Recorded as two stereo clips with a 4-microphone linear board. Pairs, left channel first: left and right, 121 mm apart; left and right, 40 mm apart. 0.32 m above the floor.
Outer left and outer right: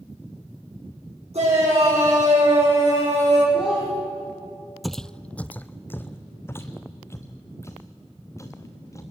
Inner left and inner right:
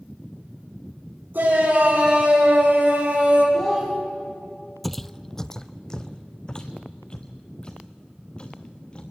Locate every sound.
1.3 s a shout: 60° right (ahead or behind), 9 m; by 3.4 s 55° right (ahead or behind), 9.5 m
3.5 s a child speaking: 10° right (ahead or behind), 8 m
4.8 s footsteps: centre (ahead or behind), 0.5 m; by 9.0 s 25° left (ahead or behind), 3 m